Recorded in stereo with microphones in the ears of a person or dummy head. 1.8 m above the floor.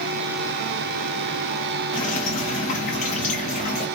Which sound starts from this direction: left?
Dripping, at 1.9 s.